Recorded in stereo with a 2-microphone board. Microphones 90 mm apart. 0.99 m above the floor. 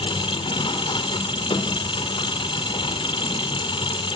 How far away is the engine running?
About 2.5 m.